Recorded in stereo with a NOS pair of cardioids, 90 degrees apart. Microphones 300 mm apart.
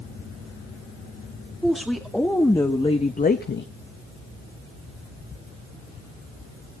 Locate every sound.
1.6 s a woman speaking: straight ahead, 2 m; by 3.7 s 45° left, 0.9 m